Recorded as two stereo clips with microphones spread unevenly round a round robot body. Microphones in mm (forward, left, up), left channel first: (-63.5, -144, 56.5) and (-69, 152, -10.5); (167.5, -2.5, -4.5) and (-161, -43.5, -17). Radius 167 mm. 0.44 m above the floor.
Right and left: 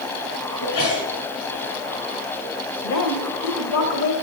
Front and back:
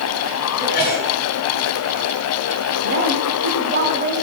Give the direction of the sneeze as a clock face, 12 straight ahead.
2 o'clock.